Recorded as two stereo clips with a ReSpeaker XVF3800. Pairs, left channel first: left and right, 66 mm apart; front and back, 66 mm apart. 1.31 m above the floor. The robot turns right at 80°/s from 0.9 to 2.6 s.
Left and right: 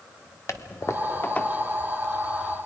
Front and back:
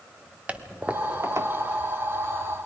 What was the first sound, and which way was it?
A toilet flushing, 115° left.